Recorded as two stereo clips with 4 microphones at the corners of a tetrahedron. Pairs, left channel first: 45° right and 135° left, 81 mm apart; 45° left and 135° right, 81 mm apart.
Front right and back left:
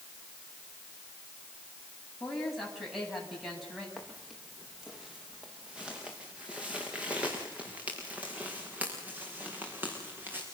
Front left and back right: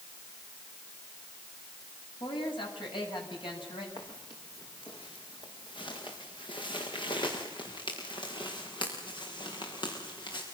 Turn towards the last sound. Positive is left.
turn(degrees=65)